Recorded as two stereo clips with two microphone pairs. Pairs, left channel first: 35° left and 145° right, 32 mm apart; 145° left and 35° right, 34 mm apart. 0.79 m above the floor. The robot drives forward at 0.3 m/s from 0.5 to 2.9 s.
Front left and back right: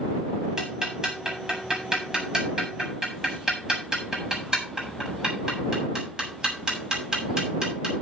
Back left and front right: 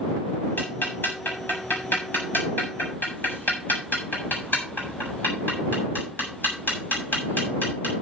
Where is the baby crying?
No baby crying in this recording.